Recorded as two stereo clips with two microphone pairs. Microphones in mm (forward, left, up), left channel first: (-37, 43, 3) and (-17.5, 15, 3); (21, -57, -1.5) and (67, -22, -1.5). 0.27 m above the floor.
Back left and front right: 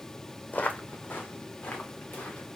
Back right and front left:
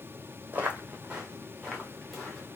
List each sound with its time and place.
0.5 s footsteps: 95° left, 0.8 m; by 2.6 s 125° left, 1.7 m